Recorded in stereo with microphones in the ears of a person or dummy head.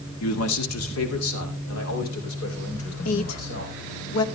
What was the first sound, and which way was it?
A man speaking, 80° left.